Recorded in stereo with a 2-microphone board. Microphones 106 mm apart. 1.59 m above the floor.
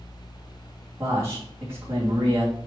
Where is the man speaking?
25° right (ahead or behind), 3 m.